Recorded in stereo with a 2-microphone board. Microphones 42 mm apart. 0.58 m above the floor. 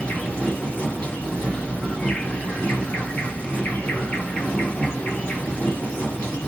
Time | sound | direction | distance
0.0 | an insect | 30° left (ahead or behind) | 1.6 m